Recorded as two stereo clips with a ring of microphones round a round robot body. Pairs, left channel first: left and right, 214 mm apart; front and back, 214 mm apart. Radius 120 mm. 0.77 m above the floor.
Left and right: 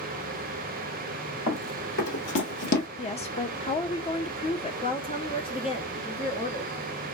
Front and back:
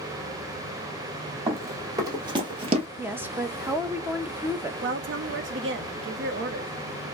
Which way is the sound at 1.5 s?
105° left.